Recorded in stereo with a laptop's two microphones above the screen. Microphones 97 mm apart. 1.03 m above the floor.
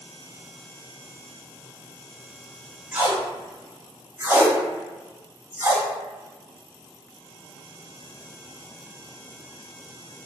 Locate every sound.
2.9 s tape being pulled: 25° right (ahead or behind), 0.9 m